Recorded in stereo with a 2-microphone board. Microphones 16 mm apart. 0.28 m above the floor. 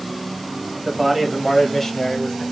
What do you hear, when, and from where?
0.8 s a man speaking: 25° right (ahead or behind), 1.4 m; by 2.4 s 45° left (ahead or behind), 1.4 m